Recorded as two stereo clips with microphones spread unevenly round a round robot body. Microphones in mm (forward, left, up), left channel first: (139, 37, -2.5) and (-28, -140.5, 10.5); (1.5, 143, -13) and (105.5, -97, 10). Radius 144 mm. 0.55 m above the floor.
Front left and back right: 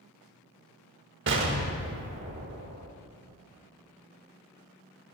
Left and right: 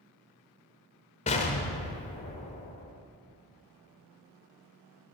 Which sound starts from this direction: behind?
An explosion, at 1.3 s.